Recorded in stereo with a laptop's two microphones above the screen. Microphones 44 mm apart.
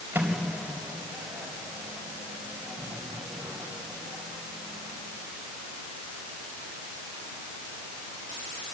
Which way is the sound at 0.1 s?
50° right (ahead or behind).